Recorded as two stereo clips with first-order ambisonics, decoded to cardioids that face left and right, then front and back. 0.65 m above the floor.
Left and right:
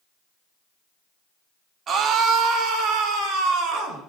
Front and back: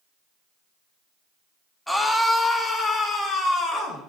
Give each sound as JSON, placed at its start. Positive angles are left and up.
{"t": 1.9, "sound": "a scream", "azimuth_deg": -85, "distance_m": 1.0}